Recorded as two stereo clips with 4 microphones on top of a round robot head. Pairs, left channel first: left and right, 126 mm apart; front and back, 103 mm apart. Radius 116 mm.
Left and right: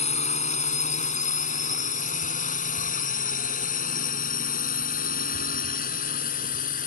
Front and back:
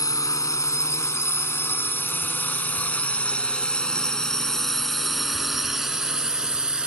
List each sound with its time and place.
0.0 s a drone: 60° left; by 6.9 s 100° left